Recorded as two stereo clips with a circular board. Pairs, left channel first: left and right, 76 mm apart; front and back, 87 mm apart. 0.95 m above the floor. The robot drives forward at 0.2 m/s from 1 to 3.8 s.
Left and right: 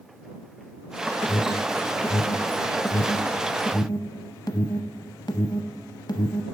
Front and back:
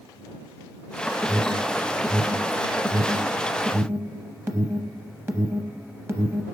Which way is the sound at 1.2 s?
70° left.